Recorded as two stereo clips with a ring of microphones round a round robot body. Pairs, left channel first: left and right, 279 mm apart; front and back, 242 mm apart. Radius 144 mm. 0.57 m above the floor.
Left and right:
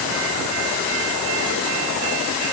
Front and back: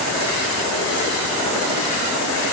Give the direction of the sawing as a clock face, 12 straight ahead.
No sawing in this recording.